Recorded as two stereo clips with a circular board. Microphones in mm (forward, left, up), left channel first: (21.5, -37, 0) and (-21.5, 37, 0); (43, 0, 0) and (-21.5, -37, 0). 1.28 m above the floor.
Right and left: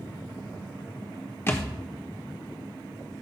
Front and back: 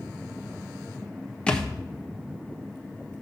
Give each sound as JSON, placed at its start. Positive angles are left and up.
{"t": 1.5, "sound": "a thud", "azimuth_deg": -35, "distance_m": 0.9}